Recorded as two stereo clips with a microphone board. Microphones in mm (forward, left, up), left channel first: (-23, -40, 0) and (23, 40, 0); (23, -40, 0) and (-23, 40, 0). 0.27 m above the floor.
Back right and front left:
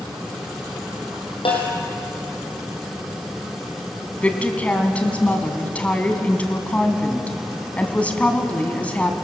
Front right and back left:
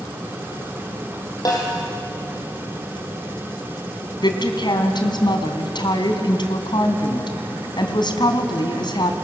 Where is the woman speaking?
45° right, 2.5 m.